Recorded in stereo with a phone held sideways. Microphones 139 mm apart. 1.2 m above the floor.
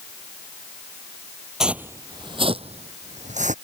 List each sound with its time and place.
1.6 s footsteps: 5° right (ahead or behind); by 3.5 s 60° right (ahead or behind)